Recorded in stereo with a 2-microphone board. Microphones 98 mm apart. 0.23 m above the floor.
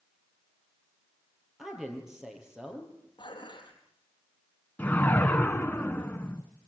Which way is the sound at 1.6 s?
5° right (ahead or behind).